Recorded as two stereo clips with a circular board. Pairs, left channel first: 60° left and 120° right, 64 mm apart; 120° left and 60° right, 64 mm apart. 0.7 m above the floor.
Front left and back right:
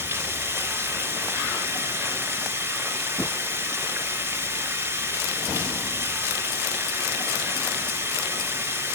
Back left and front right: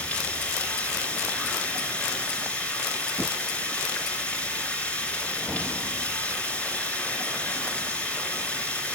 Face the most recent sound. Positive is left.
turn(degrees=-170)